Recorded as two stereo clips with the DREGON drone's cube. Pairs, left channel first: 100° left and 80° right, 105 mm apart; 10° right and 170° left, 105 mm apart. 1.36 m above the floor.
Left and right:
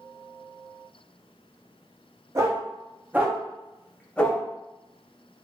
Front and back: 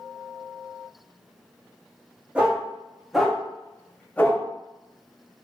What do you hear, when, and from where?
2.4 s a dog barking: 120° right, 1.0 m; by 4.4 s 45° left, 0.9 m